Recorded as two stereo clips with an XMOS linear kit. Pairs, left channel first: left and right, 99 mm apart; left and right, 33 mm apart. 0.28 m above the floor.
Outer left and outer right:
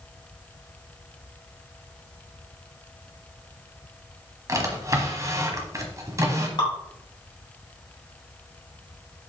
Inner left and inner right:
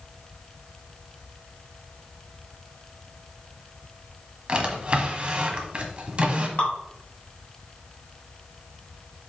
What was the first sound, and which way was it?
A drawer, 30° right (ahead or behind).